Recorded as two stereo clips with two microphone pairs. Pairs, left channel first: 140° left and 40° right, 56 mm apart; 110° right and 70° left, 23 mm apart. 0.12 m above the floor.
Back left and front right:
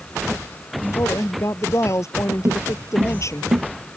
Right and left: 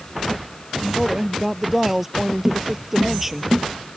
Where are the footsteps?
Straight ahead; by 3.6 s 5° right.